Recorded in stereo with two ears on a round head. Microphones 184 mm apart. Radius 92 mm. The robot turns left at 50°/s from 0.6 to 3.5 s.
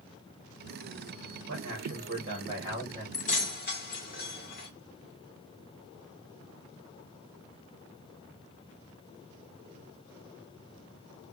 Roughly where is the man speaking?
Right.